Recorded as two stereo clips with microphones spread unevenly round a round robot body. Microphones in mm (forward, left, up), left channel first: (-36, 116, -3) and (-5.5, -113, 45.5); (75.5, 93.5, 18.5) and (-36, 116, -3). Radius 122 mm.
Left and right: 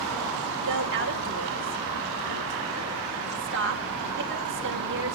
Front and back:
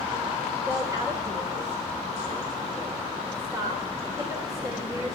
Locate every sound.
0.7 s a woman speaking: 125° right, 2.5 m